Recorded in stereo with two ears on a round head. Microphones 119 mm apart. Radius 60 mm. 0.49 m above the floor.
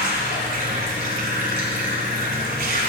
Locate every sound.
0.0 s running water: 70° right (ahead or behind), 1.8 m